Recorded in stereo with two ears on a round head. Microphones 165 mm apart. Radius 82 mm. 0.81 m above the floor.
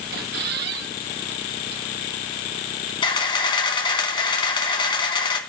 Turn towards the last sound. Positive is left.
turn(degrees=25)  # may be behind; listen again after turning